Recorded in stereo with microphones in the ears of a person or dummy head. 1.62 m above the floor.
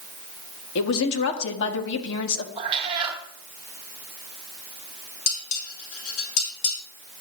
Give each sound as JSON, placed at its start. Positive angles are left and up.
{"t": 0.8, "sound": "a woman speaking", "side_deg": 70, "distance_m": 1.7}
{"t": 2.6, "sound": "a cat meowing", "side_deg": -25, "distance_m": 1.2}
{"t": 5.3, "sound": "dishes clattering", "side_deg": 75, "distance_m": 4.0}